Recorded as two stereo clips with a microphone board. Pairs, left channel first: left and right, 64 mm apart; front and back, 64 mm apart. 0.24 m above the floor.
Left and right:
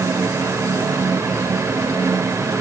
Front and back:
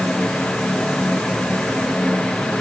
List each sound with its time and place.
Only background noise.